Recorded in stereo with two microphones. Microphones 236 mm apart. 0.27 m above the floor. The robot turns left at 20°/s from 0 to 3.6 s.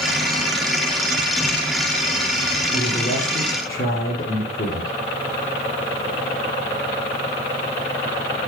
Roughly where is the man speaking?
Left.